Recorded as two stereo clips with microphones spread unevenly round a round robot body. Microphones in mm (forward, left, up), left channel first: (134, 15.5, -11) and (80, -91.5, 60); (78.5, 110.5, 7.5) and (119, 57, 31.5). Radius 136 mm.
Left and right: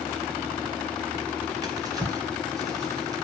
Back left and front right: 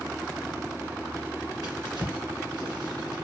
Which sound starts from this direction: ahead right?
A drawer, at 1.6 s.